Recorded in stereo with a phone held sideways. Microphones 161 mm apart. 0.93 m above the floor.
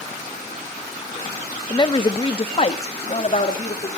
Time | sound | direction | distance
1.7 | a woman speaking | 25° left (ahead or behind) | 0.8 m